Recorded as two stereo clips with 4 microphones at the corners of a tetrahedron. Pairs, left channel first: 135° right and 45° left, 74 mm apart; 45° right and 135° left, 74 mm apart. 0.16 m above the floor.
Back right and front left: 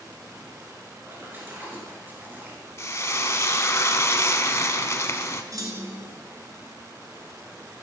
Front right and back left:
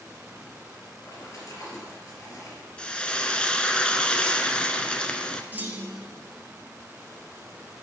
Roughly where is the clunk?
Left.